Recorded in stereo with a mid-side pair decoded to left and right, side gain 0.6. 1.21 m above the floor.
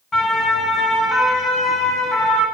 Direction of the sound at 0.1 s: 30° left.